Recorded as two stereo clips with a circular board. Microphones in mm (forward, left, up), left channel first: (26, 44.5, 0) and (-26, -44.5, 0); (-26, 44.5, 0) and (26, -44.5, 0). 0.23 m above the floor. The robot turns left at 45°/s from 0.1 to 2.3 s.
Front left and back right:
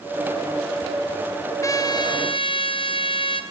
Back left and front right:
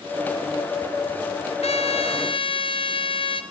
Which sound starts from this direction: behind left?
A trumpet, at 1.6 s.